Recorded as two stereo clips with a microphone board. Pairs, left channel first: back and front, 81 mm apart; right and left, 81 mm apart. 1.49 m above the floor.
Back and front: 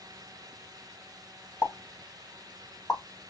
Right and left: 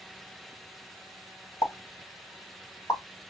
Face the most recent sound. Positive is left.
turn(degrees=-135)